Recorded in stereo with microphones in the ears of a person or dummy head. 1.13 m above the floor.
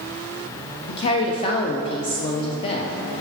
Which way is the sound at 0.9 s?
30° left (ahead or behind).